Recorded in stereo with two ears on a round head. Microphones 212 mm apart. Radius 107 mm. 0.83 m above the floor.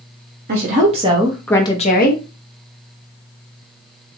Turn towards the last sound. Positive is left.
turn(degrees=50)  # may be behind; listen again after turning